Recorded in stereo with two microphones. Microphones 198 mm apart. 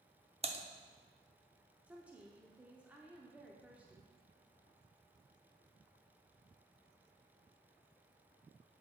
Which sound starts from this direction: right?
Typing on a keyboard, at 0.4 s.